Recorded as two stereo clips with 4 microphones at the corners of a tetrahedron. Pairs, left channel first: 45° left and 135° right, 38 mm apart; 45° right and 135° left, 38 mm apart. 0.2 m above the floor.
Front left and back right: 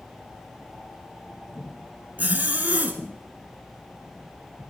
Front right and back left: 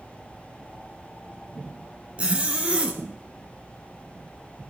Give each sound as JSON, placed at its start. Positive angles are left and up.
{"t": 2.2, "sound": "a zipper", "azimuth_deg": -170, "distance_m": 2.0}